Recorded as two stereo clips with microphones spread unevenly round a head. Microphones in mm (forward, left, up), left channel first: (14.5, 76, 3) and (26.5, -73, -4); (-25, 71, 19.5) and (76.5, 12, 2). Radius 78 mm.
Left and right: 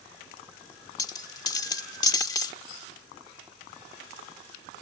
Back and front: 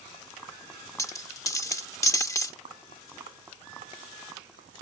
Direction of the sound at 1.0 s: 135° left.